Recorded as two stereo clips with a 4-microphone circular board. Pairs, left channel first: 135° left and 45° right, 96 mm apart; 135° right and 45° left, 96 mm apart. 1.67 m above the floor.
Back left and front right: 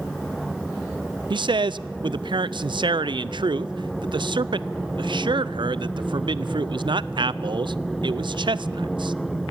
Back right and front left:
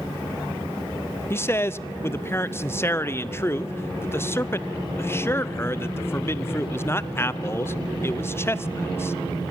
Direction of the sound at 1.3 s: 75° right.